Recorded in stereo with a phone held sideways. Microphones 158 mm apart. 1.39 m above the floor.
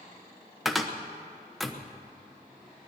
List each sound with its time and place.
0.7 s a cupboard door: centre (ahead or behind), 1.0 m